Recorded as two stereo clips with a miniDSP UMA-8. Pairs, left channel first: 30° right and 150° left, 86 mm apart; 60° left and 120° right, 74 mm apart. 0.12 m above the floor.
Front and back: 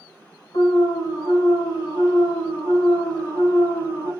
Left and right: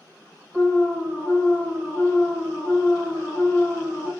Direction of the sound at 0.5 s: 10° right.